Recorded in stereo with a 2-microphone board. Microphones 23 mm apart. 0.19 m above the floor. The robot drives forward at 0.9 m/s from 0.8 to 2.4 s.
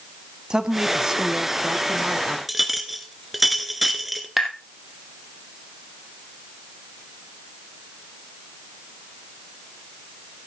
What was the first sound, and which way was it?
A woman speaking, 30° right (ahead or behind).